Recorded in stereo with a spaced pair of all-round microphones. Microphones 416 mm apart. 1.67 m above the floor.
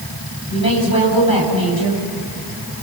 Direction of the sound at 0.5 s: 60° left (ahead or behind).